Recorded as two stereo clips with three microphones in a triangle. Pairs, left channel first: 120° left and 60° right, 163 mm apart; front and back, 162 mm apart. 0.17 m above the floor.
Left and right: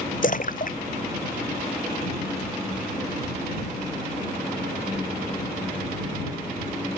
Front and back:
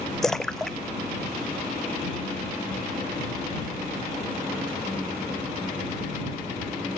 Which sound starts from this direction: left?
A splash, at 0.2 s.